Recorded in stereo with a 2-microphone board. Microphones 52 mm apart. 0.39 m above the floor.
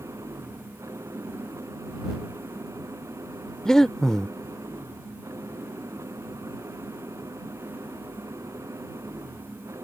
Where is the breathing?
10° left (ahead or behind).